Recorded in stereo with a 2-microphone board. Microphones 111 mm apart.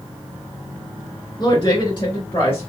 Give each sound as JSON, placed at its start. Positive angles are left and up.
{"t": 1.4, "sound": "a woman speaking", "side_deg": 45, "distance_m": 2.5}